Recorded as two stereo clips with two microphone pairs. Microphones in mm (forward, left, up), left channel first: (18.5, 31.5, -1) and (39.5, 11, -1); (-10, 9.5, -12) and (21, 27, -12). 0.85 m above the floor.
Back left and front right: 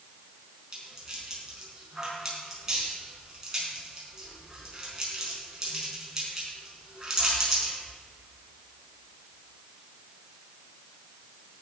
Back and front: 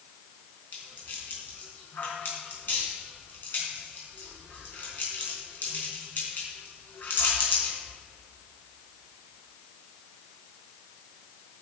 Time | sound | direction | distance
0.7 | a rattle | 120° right | 5 m